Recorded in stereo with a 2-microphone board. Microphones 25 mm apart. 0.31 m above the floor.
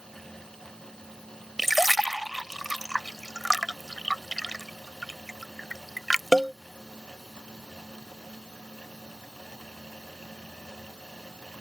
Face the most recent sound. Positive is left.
turn(degrees=-5)  # may be behind; listen again after turning